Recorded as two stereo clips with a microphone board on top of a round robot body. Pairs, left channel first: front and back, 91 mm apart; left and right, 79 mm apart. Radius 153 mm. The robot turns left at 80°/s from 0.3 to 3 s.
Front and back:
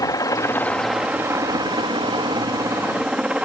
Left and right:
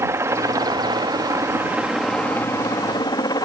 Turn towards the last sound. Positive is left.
turn(degrees=105)